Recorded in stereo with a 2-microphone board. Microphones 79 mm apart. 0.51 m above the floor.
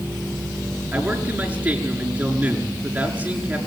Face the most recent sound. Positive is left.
turn(degrees=-20)  # may be behind; listen again after turning